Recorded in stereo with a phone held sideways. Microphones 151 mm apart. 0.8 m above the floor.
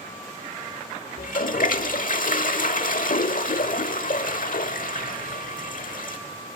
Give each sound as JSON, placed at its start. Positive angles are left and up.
{"t": 1.2, "sound": "a toilet flushing", "side_deg": 65, "distance_m": 1.0}